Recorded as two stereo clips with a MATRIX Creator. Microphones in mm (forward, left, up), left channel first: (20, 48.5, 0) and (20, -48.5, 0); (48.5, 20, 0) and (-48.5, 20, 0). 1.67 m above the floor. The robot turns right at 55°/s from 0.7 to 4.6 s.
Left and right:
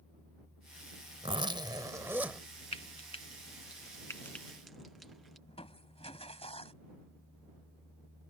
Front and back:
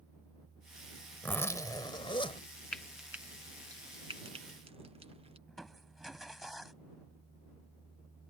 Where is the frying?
80° left; by 5.4 s straight behind.